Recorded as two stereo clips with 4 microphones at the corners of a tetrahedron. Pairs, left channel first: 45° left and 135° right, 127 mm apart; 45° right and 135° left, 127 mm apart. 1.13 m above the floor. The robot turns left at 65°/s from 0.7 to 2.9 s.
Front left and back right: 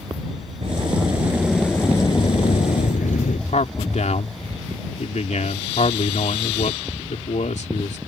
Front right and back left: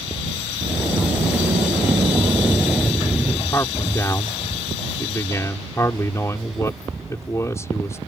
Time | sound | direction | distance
0.6 | a sliding door | 170° right | ?
3.5 | a man speaking | 20° left | ?